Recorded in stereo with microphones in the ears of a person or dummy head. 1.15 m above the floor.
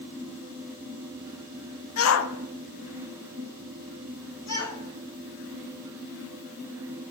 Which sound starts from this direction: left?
A shout, at 2.0 s.